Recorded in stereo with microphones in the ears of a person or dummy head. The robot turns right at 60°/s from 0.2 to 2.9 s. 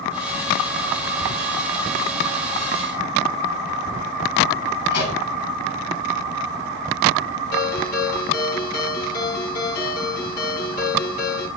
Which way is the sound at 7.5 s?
60° left (ahead or behind).